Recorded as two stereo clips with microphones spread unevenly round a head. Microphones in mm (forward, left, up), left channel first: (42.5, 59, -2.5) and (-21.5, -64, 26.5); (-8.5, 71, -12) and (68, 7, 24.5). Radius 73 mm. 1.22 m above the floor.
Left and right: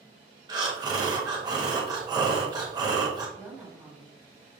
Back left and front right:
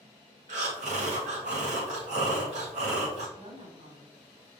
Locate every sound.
0.5 s breathing: 55° right, 1.0 m
3.4 s a woman speaking: 35° right, 2.0 m